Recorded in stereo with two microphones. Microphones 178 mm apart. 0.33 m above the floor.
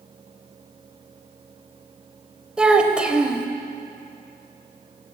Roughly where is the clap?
I don't hear a clap.